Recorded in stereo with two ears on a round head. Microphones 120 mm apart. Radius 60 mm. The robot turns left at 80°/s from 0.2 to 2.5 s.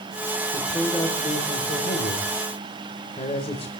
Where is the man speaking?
150° right, 3 m; by 3.7 s 50° left, 3 m.